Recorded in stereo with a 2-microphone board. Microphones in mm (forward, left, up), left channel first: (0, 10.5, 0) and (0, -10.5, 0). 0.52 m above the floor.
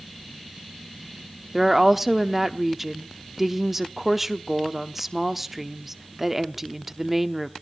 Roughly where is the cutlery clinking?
No cutlery clinking in this recording.